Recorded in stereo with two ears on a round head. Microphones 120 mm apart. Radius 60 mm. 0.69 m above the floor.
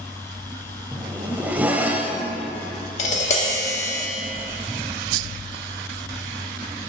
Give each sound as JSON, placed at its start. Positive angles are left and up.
{"t": 0.9, "sound": "a zipper", "side_deg": -10, "distance_m": 0.6}
{"t": 3.0, "sound": "tapping", "side_deg": 55, "distance_m": 1.3}